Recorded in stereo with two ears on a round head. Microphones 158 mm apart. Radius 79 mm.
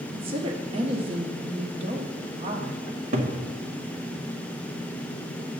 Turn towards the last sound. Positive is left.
turn(degrees=-50)  # may be behind; listen again after turning